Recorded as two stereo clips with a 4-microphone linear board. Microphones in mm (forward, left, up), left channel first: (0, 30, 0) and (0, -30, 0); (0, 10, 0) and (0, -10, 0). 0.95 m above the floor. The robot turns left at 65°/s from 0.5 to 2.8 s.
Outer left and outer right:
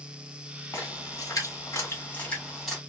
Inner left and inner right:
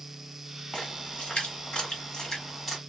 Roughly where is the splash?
Left.